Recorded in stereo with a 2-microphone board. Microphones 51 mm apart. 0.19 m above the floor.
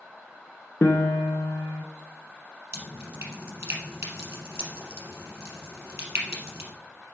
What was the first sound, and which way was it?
A piano, 55° left (ahead or behind).